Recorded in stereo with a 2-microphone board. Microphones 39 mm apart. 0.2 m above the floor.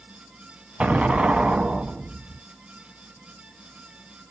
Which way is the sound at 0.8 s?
35° right (ahead or behind).